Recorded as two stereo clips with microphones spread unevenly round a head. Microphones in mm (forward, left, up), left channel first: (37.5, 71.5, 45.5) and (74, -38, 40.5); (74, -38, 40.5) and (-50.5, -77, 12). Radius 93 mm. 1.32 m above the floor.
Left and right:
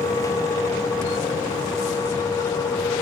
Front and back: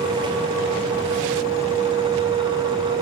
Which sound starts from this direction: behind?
A fan, at 0.0 s.